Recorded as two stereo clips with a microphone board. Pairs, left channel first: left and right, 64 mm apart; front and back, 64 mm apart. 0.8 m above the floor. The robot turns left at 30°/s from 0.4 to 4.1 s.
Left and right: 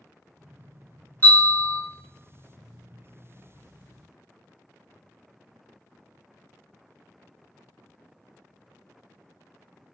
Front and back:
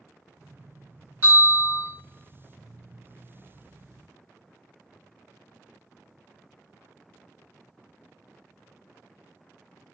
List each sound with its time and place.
1.2 s a bell: 135° left, 1.9 m; by 1.8 s 120° left, 1.9 m